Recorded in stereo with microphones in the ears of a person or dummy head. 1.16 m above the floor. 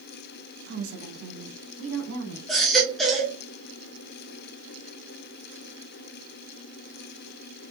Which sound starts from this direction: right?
A woman speaking, at 0.7 s.